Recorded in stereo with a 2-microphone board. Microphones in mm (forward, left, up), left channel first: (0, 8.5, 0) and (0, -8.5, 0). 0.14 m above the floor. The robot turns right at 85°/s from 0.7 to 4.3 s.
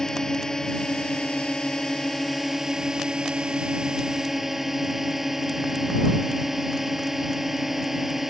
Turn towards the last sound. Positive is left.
turn(degrees=-15)